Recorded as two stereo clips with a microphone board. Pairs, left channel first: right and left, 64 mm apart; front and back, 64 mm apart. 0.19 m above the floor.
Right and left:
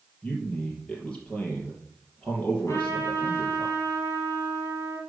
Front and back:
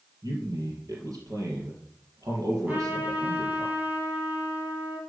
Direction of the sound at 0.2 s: 160° right.